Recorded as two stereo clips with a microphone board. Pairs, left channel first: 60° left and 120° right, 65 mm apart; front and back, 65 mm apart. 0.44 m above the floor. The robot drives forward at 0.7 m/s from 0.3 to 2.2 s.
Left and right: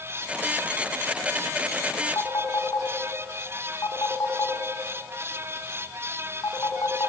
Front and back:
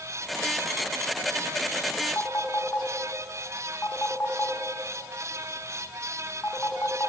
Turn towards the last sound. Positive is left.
turn(degrees=50)